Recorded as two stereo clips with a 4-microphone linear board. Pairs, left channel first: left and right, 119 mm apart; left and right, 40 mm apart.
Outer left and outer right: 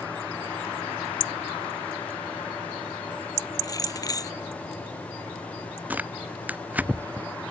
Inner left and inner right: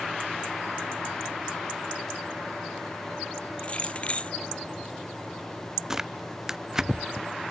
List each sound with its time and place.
3.6 s keys jangling: 30° left (ahead or behind)
5.9 s tearing paper: 10° right (ahead or behind)